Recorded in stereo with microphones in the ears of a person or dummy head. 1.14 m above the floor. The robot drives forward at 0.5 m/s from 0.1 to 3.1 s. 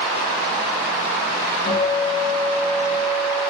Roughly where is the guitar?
Centre.